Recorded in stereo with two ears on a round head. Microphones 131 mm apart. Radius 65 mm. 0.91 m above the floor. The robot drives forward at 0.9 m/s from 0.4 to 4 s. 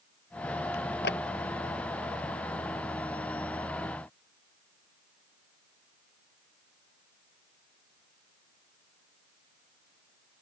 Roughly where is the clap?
Left.